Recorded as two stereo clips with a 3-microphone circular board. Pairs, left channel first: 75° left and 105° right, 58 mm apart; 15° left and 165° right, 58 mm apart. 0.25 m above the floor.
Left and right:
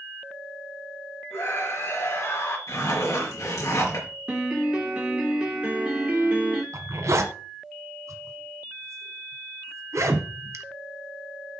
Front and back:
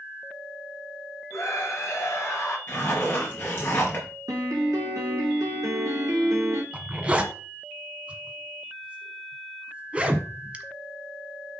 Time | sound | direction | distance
1.3 | a scream | 40° left | 4.5 m
2.7 | a zipper | 65° left | 5 m
4.3 | a piano | 175° right | 2.5 m
6.7 | a zipper | 100° right | 1.1 m